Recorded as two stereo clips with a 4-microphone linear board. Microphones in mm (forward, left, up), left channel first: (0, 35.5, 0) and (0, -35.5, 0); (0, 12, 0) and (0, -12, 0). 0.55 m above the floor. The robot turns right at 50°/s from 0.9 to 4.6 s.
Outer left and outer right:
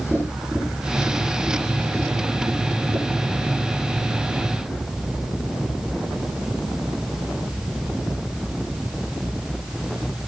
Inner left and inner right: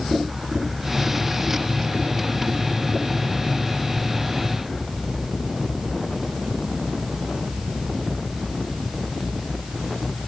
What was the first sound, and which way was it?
Tapping, centre (ahead or behind).